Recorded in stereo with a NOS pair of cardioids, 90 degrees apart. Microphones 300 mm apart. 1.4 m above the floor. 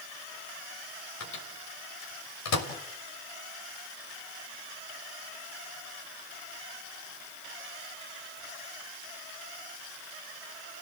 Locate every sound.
1.2 s a microwave: 65° left, 5.5 m